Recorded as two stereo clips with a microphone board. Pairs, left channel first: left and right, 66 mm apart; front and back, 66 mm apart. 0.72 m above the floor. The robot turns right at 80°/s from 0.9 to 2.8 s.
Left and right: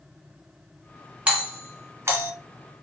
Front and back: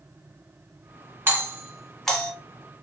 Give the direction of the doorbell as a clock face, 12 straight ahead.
5 o'clock.